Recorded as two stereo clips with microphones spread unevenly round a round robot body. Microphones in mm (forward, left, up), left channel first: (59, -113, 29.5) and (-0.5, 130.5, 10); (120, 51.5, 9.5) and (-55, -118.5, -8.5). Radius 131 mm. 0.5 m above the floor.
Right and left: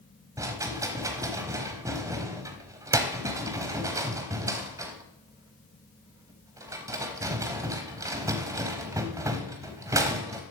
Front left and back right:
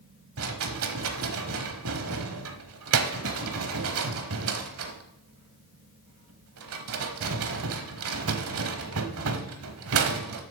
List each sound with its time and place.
0.4 s a rattle: 175° right, 0.9 m